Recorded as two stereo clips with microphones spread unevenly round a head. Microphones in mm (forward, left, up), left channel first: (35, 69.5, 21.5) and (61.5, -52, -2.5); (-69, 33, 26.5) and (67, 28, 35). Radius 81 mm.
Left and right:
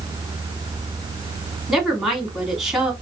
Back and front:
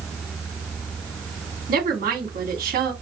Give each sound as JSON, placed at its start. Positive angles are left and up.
{"t": 1.7, "sound": "a woman speaking", "azimuth_deg": 10, "distance_m": 2.5}